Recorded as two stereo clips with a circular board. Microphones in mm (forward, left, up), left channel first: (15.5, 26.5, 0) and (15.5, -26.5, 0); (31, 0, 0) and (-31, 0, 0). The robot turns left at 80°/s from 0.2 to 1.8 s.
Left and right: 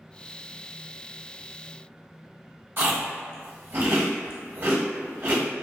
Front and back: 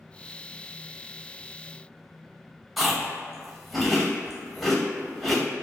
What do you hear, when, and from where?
2.8 s chewing: 90° right, 0.9 m